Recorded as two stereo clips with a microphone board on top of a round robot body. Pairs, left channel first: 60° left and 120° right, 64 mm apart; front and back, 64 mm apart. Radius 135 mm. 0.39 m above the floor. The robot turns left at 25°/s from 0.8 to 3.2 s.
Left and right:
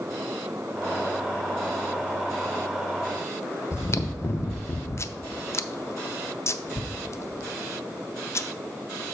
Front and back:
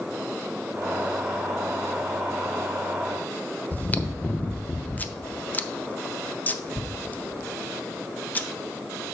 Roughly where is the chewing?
Ahead left.